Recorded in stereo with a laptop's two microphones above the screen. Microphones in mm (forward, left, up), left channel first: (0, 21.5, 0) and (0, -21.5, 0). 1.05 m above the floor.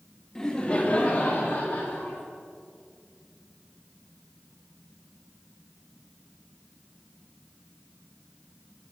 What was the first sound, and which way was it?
Laughter, 15° left (ahead or behind).